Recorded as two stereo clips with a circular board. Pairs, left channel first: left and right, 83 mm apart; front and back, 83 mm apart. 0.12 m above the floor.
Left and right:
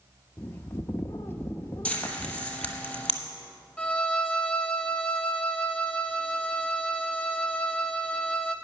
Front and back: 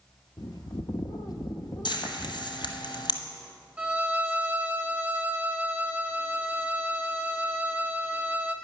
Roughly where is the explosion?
No explosion in this recording.